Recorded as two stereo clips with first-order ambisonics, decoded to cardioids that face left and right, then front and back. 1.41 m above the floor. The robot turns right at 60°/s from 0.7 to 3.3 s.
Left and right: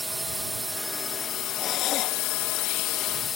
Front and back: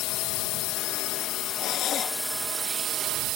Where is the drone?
5° right; by 3.4 s 150° left.